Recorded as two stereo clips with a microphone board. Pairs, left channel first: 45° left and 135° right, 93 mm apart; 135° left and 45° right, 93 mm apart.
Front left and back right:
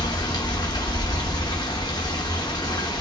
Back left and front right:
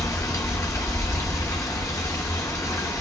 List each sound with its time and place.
0.0 s running water: 85° left, 0.8 m